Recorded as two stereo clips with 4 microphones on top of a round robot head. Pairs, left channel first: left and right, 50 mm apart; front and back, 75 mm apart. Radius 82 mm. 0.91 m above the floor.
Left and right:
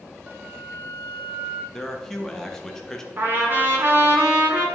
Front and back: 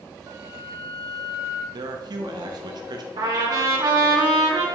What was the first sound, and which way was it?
A flute, 145° right.